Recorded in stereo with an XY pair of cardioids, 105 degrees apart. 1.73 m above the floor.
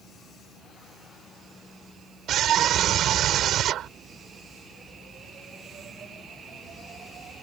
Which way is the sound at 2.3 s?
70° right.